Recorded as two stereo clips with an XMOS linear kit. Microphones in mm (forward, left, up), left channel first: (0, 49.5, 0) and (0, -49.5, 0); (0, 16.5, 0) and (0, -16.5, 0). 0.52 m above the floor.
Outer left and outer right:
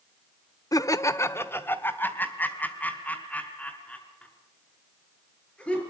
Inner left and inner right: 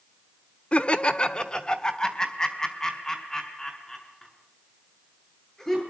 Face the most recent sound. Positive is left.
turn(degrees=10)  # may be behind; listen again after turning